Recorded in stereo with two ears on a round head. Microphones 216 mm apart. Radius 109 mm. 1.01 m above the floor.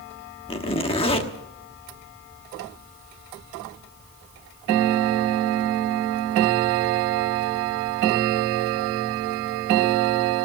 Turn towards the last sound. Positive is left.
turn(degrees=25)  # may be behind; listen again after turning